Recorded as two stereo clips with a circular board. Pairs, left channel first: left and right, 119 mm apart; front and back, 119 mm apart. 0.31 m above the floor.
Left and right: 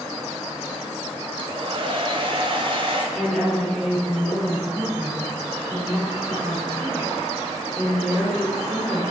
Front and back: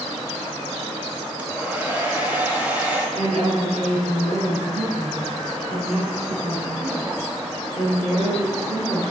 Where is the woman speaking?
Straight behind, 4 m.